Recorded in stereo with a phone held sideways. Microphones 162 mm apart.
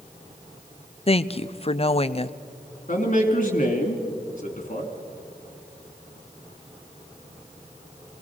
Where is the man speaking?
50° left (ahead or behind), 2.5 m.